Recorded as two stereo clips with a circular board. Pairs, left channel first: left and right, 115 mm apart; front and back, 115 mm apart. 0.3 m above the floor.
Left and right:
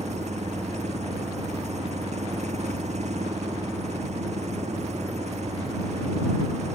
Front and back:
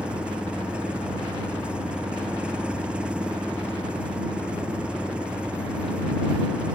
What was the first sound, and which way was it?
An engine running, 100° right.